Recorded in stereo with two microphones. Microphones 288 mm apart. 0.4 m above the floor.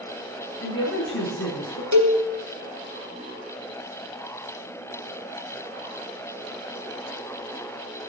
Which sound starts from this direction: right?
A cowbell, at 1.9 s.